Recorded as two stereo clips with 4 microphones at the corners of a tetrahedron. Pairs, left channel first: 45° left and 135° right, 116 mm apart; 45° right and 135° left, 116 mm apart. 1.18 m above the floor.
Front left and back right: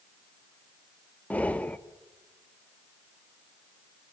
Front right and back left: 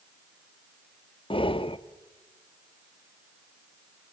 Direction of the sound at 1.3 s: 30° right.